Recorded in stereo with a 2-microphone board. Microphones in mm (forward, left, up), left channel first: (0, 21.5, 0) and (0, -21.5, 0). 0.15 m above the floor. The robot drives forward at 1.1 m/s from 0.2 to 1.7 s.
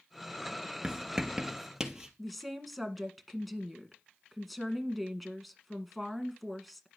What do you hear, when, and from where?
0.8 s writing: 15° right (ahead or behind), 0.8 m; by 2.1 s 5° right (ahead or behind), 1.7 m
2.2 s a woman speaking: 5° left (ahead or behind), 1.6 m